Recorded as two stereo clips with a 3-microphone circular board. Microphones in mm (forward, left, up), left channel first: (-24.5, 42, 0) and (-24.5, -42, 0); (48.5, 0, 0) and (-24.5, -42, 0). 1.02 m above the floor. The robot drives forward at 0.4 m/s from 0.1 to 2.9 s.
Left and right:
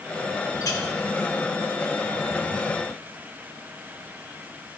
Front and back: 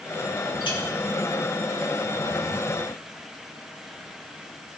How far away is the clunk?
I don't hear a clunk.